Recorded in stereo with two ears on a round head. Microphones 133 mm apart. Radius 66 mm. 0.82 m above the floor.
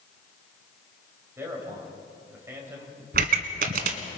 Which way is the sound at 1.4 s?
15° right (ahead or behind).